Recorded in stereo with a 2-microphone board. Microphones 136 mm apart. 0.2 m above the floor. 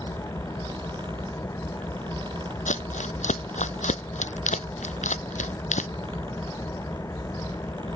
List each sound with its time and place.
0.0 s an engine running: 20° left (ahead or behind)
2.7 s crumpling: 60° left (ahead or behind)